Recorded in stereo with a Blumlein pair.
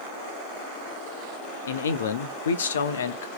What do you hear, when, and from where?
1.7 s a man speaking: 65° left, 0.6 m